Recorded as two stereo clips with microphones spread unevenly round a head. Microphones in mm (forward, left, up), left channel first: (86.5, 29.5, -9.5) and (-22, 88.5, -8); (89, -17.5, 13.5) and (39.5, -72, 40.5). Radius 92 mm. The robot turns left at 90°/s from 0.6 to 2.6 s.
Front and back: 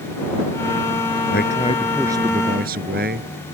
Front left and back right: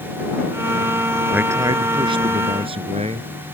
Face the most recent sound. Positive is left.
turn(degrees=180)